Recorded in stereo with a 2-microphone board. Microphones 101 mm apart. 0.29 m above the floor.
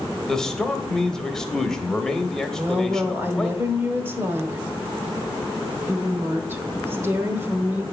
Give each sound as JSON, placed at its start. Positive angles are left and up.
{"t": 0.3, "sound": "a man speaking", "side_deg": 5, "distance_m": 1.0}
{"t": 2.6, "sound": "a woman speaking", "side_deg": -20, "distance_m": 1.2}